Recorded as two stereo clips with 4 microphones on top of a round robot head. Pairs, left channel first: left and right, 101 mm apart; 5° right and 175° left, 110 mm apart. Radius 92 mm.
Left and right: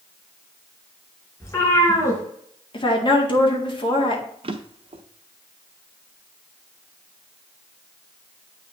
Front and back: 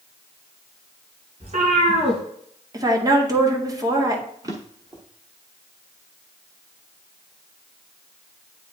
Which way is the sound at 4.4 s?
120° right.